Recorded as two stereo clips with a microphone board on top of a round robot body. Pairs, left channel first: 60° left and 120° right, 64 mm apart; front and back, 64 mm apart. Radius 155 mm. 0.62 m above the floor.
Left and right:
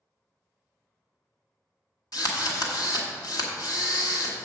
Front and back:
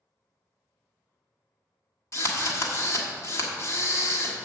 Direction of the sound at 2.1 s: 40° left.